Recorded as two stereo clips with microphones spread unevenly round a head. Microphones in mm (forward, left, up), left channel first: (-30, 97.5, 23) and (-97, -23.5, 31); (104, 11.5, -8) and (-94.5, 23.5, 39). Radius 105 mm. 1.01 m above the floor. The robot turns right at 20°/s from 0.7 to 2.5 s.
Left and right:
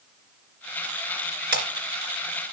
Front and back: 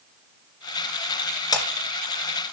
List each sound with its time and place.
1.5 s breaking glass: 80° right, 2.5 m; by 1.6 s 75° right, 2.5 m